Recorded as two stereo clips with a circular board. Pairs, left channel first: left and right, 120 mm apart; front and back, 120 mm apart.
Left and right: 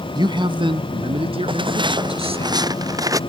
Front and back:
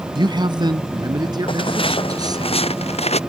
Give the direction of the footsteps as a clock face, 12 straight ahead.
1 o'clock.